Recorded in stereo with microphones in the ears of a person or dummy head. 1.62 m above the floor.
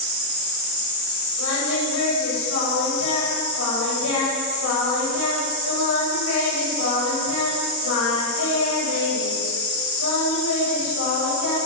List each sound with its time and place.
1.4 s singing: 80° left, 9.5 m